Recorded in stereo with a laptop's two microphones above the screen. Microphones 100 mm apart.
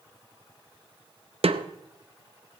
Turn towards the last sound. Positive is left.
turn(degrees=-70)  # may be behind; listen again after turning